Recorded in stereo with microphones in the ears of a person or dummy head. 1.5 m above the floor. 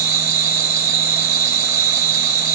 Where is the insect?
15° right (ahead or behind), 1.6 m.